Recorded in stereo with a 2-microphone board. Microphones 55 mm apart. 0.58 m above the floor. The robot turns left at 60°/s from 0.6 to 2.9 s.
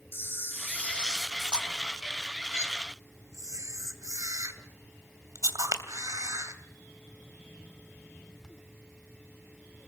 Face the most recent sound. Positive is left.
turn(degrees=-75)  # may be behind; listen again after turning